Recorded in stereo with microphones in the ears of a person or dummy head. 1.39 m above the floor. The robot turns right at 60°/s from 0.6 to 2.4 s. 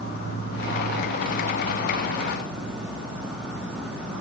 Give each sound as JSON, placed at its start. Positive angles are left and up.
{"t": 0.0, "sound": "an insect", "azimuth_deg": 75, "distance_m": 3.0}